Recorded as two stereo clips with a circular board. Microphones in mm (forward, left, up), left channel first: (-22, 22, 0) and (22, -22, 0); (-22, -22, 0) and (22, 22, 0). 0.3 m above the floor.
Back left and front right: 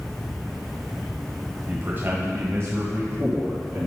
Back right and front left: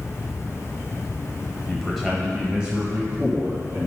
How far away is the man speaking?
About 1.1 m.